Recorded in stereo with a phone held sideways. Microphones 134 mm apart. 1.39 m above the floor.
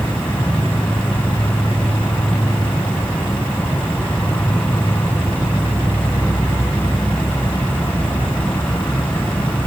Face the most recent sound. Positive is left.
turn(degrees=10)  # may be behind; listen again after turning